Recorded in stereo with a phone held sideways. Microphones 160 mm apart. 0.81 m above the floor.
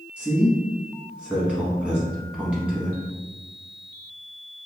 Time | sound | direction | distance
0.2 | a man speaking | 5° right (ahead or behind) | 1.1 m